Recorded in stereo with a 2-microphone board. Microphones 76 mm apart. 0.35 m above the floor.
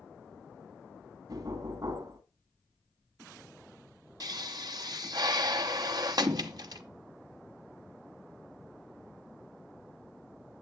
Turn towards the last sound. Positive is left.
turn(degrees=-60)  # may be behind; listen again after turning